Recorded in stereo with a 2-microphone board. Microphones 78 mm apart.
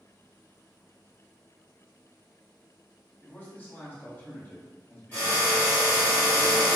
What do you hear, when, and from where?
3.2 s a man speaking: 25° left (ahead or behind), 1.0 m
5.1 s a drill: 20° left (ahead or behind), 1.7 m